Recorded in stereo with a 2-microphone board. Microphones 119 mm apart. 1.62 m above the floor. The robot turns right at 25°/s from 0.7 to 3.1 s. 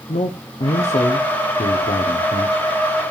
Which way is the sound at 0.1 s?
70° left.